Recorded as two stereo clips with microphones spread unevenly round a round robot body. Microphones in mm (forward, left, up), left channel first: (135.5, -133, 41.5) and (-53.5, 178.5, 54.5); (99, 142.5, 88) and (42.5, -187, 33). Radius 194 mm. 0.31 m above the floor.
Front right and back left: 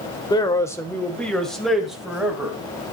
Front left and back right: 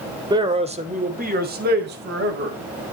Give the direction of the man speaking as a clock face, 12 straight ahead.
4 o'clock.